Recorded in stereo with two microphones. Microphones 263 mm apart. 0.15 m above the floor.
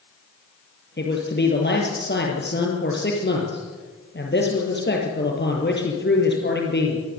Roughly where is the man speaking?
Left.